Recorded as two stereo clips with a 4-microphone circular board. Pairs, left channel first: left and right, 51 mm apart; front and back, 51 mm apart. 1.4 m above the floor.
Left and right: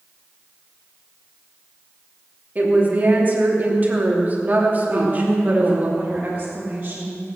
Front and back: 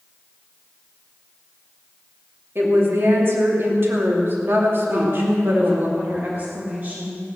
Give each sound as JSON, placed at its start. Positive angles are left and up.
{"t": 2.5, "sound": "a woman speaking", "azimuth_deg": -140, "distance_m": 2.5}
{"t": 4.9, "sound": "a woman speaking", "azimuth_deg": -150, "distance_m": 2.5}